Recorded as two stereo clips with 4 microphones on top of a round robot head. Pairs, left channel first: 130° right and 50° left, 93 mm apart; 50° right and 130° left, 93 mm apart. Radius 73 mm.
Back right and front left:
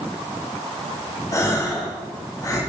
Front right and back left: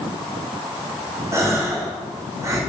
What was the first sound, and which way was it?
A gasp, 175° right.